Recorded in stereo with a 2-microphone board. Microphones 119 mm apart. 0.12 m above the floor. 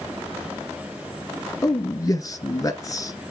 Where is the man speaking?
30° left (ahead or behind), 1.6 m.